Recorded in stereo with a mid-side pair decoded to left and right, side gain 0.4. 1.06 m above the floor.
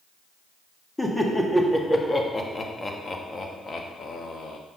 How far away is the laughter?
About 2.5 m.